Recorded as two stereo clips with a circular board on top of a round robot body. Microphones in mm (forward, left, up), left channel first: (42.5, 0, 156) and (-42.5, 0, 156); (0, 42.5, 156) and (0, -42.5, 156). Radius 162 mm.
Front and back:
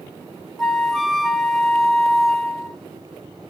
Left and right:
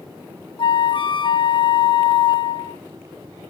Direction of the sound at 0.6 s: 85° left.